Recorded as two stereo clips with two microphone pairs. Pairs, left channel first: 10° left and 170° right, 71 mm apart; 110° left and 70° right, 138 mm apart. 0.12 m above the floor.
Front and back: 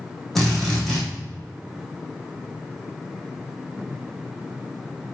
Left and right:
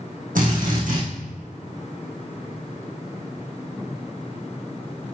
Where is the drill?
75° right, 5.5 m.